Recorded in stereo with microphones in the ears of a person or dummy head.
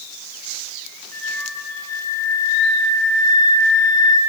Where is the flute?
15° left (ahead or behind), 0.8 m.